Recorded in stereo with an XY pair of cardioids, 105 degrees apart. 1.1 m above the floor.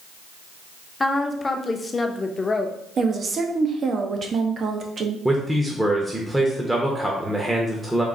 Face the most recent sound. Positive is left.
turn(degrees=-10)